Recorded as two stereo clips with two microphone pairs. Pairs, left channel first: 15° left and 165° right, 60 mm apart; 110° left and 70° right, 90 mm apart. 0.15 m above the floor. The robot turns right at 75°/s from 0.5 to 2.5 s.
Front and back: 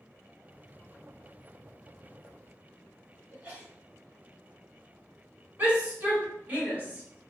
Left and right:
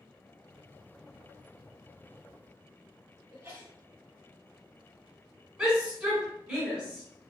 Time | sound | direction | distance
3.3 | a sneeze | 130° right | 1.7 m
5.6 | a shout | 140° right | 1.8 m